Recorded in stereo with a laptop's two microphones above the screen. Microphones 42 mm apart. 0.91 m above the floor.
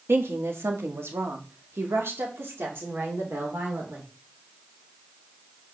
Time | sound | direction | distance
0.1 | a woman speaking | 70° right (ahead or behind) | 1.3 m